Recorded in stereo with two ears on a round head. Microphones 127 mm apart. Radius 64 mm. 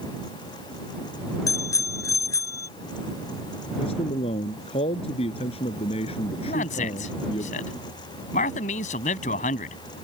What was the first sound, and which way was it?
A bicycle bell, 25° left (ahead or behind).